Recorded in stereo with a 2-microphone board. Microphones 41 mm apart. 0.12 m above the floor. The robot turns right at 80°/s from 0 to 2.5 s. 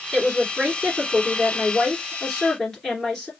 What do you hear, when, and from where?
0.1 s a woman speaking: 175° right, 2 m; by 3.3 s 15° left, 2 m